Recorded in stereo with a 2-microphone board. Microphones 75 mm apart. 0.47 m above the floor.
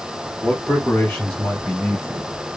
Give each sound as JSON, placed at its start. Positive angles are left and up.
{"t": 0.4, "sound": "a man speaking", "side_deg": 10, "distance_m": 1.6}